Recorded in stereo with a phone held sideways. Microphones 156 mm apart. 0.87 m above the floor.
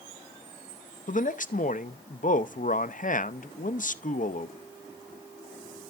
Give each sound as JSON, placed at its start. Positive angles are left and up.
{"t": 1.1, "sound": "a man speaking", "side_deg": 60, "distance_m": 0.6}